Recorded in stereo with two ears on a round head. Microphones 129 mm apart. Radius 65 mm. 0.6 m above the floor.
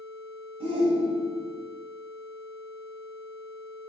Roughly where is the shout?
Right.